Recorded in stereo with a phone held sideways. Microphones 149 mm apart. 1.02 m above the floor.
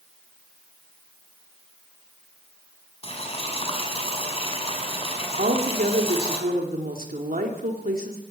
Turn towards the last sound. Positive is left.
turn(degrees=-80)